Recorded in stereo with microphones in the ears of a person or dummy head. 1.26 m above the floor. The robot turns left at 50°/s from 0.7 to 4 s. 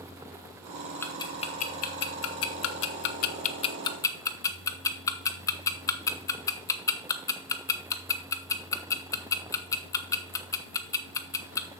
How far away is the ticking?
About 0.9 m.